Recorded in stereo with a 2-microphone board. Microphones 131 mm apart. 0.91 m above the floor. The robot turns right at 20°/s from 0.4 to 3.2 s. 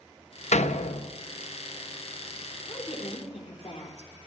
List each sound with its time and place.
0.5 s a door slam: 65° left (ahead or behind), 0.8 m
2.7 s a woman speaking: 50° left (ahead or behind), 3 m; by 4.1 s 60° left (ahead or behind), 3 m